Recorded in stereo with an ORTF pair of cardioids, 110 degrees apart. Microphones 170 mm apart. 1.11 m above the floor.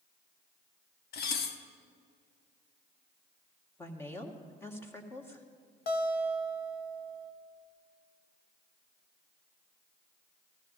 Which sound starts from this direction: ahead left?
A guitar, at 5.9 s.